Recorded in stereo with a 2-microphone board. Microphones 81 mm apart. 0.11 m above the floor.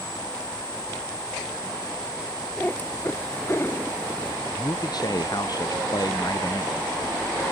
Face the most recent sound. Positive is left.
turn(degrees=55)  # may be behind; listen again after turning